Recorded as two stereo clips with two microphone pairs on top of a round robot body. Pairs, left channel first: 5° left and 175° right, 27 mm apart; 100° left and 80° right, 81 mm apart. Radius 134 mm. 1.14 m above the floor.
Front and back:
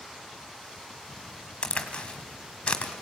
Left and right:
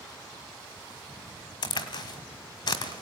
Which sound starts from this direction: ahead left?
A crack, at 1.6 s.